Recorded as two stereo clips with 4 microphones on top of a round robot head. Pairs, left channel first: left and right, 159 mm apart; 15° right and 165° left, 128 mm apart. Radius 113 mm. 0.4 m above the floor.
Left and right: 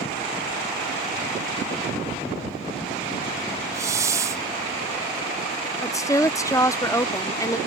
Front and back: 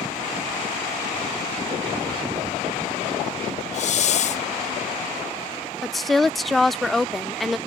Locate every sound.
3.7 s a hiss: 20° right
5.8 s a woman speaking: 75° left